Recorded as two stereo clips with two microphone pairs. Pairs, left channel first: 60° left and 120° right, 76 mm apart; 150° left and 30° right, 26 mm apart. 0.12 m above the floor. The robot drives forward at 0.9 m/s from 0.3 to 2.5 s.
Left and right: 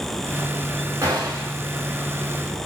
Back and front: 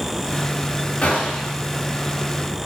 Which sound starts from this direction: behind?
A gunshot, at 1.0 s.